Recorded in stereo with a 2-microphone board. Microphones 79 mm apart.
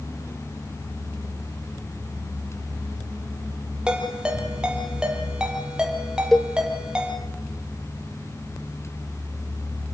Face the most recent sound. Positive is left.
turn(degrees=5)  # may be behind; listen again after turning